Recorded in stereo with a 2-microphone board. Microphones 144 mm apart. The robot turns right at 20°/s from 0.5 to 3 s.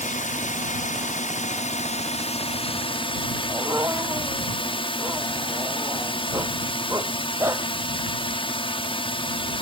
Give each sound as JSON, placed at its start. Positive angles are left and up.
{"t": 0.0, "sound": "a drone", "azimuth_deg": 85}
{"t": 3.5, "sound": "a dog barking", "side_deg": -20}